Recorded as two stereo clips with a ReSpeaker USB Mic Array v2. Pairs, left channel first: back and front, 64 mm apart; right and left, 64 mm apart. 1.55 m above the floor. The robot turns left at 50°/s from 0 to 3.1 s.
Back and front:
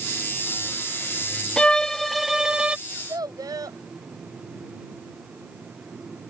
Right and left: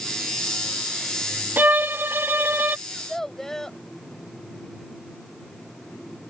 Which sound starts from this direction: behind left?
A violin, at 1.6 s.